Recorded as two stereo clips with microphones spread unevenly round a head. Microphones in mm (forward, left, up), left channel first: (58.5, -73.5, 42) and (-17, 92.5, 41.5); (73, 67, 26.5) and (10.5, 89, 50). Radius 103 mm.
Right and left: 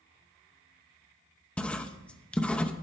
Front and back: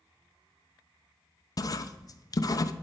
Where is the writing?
20° left, 0.8 m.